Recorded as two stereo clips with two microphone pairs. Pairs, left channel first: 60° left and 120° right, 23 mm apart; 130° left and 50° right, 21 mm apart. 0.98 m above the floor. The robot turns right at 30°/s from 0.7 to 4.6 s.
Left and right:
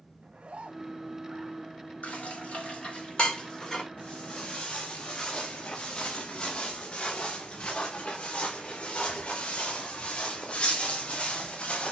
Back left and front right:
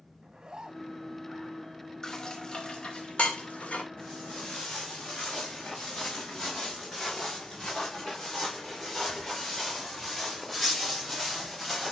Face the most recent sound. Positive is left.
turn(degrees=50)